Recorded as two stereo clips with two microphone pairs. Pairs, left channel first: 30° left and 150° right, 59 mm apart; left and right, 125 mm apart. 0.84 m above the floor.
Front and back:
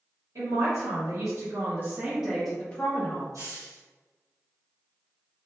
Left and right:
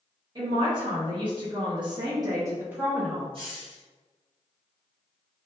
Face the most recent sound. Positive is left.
turn(degrees=-135)